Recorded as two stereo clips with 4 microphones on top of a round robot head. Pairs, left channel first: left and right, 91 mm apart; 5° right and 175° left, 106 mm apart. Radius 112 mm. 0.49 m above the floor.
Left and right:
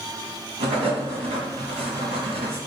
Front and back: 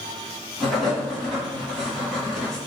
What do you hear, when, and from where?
0.6 s writing: 90° right, 1.4 m